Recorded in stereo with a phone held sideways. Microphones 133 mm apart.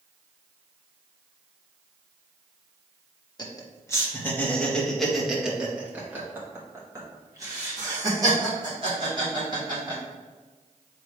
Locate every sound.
3.4 s laughter: 30° left (ahead or behind), 1.7 m; by 10.0 s 40° right (ahead or behind), 4 m